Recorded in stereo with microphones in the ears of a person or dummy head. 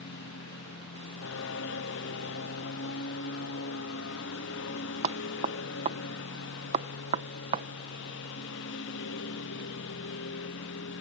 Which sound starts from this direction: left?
A lawn mower, at 0.0 s.